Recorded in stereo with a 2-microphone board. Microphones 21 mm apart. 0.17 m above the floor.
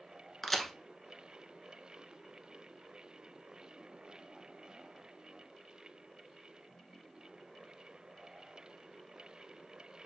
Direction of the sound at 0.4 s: 10° left (ahead or behind).